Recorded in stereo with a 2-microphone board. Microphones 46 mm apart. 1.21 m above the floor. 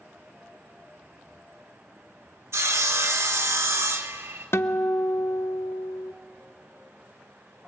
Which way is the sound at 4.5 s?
60° left (ahead or behind).